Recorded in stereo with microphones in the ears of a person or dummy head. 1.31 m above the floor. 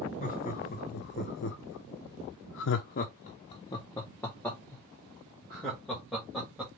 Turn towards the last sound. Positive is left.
turn(degrees=0)  # may be behind; listen again after turning